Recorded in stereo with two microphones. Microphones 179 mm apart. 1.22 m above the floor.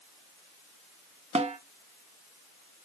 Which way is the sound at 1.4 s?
40° right (ahead or behind).